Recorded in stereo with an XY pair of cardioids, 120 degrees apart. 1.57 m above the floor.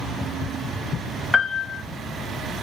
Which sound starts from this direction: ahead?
A piano, at 1.3 s.